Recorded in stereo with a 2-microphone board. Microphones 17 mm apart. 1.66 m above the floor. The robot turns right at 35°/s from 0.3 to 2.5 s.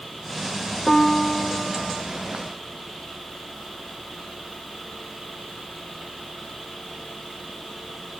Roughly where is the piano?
Behind left.